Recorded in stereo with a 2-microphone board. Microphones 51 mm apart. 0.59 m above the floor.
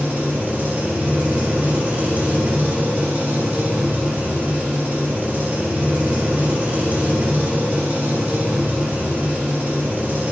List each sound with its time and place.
0.0 s an engine running: 35° right (ahead or behind), 1.8 m